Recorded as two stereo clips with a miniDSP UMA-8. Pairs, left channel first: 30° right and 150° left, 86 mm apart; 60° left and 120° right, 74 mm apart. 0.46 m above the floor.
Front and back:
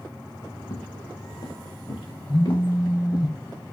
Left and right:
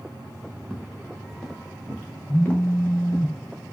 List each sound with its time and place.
0.6 s footsteps: 35° right, 3 m; by 3.3 s 5° left, 4.5 m
2.3 s a phone buzzing: 5° left, 3 m